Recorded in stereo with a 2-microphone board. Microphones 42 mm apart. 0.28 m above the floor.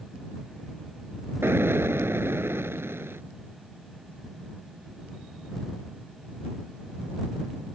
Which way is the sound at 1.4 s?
70° right (ahead or behind).